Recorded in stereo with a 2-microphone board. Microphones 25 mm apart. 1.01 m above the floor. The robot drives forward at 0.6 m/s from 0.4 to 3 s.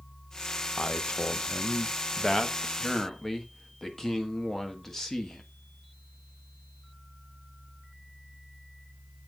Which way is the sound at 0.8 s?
45° left (ahead or behind).